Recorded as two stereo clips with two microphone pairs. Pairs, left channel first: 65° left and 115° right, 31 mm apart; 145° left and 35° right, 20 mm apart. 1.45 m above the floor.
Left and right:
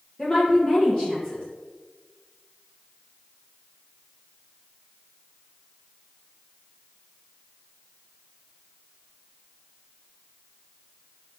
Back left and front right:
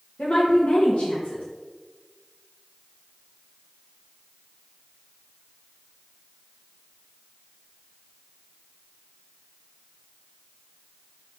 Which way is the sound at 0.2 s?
135° left.